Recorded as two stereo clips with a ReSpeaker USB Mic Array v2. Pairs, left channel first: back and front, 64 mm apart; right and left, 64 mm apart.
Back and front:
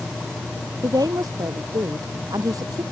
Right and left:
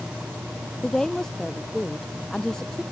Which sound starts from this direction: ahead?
A woman speaking, at 0.8 s.